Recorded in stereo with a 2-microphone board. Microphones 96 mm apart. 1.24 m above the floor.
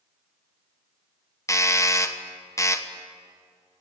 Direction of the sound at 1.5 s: 30° left (ahead or behind).